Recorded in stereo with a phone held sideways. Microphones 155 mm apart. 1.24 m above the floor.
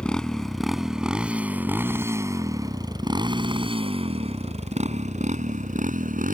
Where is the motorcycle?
5° left (ahead or behind); by 6.3 s 55° right (ahead or behind).